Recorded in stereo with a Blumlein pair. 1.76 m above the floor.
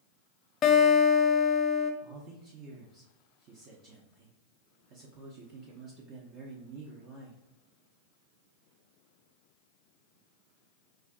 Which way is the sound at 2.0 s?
35° right.